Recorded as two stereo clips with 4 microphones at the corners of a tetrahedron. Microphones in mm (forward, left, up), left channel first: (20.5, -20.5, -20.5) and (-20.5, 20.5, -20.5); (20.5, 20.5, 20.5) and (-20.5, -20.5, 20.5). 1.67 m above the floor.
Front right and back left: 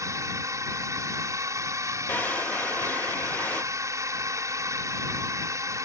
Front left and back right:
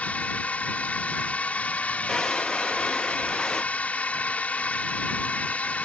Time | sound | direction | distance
0.0 | a drone | 110° left | ?
2.1 | a drawer | 25° right | ?